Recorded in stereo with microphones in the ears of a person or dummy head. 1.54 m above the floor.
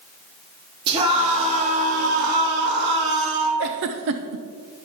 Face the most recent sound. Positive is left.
turn(degrees=-55)  # may be behind; listen again after turning